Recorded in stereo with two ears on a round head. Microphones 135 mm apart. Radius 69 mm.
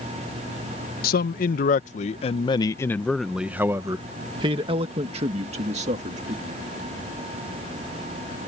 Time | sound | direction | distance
1.0 | a man speaking | 70° left (ahead or behind) | ?